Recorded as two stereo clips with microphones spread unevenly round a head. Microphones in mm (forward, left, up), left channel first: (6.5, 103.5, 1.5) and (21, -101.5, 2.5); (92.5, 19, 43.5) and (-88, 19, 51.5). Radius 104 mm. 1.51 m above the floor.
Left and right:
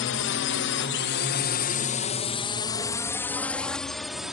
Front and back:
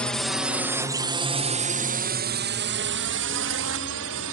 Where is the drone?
85° left; by 4.3 s 175° right.